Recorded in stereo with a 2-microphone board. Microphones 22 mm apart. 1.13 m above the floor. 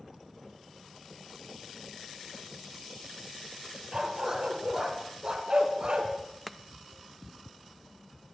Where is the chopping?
5° left (ahead or behind), 0.7 m.